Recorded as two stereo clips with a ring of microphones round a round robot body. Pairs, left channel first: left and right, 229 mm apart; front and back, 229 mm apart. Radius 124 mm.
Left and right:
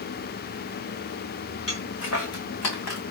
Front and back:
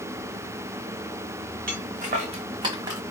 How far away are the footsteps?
About 2 m.